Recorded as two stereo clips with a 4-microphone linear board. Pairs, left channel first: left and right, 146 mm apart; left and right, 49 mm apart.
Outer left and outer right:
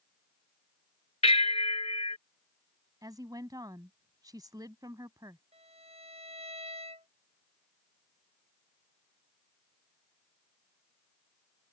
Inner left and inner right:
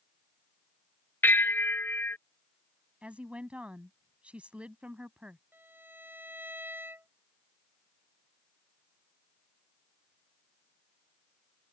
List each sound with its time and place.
1.2 s a bell: 45° left (ahead or behind)
3.0 s a woman speaking: 25° right (ahead or behind)
5.5 s a violin: 45° right (ahead or behind)